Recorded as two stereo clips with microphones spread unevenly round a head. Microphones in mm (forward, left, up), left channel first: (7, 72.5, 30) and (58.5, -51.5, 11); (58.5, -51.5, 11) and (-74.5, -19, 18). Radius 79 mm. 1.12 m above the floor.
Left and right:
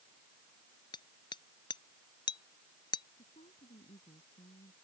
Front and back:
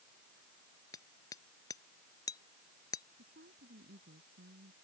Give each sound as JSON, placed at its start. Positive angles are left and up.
{"t": 0.9, "sound": "hammering", "azimuth_deg": 60}
{"t": 3.2, "sound": "a woman speaking", "azimuth_deg": 165}